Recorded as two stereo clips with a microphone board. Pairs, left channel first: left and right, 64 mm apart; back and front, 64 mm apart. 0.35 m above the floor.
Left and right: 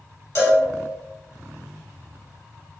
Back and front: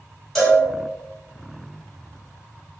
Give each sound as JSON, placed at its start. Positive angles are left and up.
{"t": 0.3, "sound": "a cowbell", "azimuth_deg": 100, "distance_m": 1.9}